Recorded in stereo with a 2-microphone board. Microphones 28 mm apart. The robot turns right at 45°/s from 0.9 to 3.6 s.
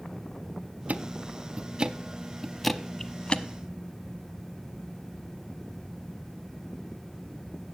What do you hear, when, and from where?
0.9 s ticking: 75° right (ahead or behind), 0.5 m; by 3.4 s 40° left (ahead or behind), 0.5 m